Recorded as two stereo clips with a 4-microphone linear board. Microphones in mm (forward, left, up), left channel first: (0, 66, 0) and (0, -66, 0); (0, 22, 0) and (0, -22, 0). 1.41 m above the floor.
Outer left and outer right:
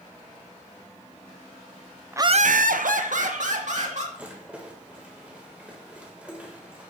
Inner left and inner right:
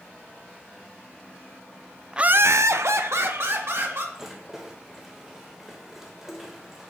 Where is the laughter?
15° right (ahead or behind), 0.5 m; by 4.0 s 65° right (ahead or behind), 3 m.